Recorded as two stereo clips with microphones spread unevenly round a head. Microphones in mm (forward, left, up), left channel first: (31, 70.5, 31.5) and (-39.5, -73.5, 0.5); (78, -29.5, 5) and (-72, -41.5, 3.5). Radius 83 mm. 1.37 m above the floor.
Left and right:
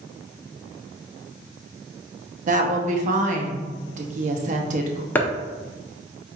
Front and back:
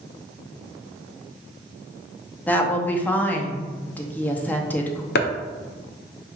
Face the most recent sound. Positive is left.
turn(degrees=-15)